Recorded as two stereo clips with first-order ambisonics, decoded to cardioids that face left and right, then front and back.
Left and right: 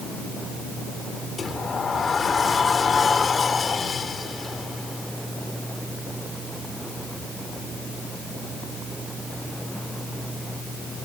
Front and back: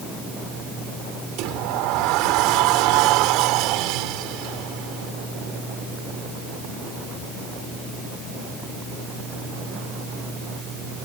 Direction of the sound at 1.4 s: 160° left.